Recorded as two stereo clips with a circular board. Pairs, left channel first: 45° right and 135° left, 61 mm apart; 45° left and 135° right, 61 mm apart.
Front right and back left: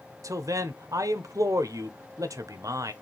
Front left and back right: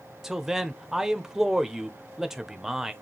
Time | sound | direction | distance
0.2 | a man speaking | 140° left | 0.7 m